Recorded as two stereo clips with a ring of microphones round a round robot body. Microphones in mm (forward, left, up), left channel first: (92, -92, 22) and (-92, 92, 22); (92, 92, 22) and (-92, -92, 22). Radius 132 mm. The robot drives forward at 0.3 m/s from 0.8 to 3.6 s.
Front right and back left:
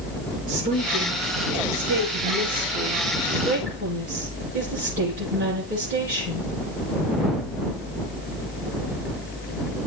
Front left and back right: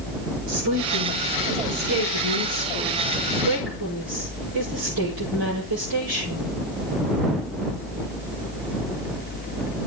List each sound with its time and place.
0.5 s a woman speaking: 165° right, 9.5 m